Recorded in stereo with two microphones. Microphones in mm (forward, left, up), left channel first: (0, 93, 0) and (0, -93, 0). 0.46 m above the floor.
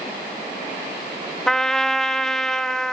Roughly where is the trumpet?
Centre.